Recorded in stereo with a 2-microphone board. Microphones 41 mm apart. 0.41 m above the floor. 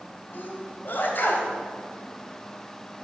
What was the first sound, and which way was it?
A sneeze, 55° left (ahead or behind).